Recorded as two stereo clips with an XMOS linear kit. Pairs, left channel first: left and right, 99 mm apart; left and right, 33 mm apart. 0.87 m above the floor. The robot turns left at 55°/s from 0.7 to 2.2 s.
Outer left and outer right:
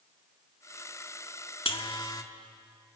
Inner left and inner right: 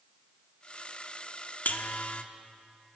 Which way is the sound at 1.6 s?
70° left (ahead or behind).